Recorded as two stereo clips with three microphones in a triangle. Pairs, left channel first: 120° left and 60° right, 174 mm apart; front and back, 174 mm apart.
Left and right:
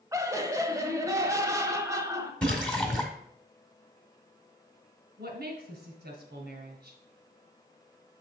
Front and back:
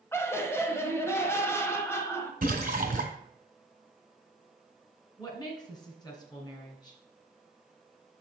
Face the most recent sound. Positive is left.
turn(degrees=-65)